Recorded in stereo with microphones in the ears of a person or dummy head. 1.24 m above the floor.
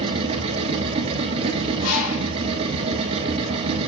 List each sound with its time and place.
0.0 s a machine running: 35° right (ahead or behind), 2.5 m
1.8 s a bird: 85° left, 4.5 m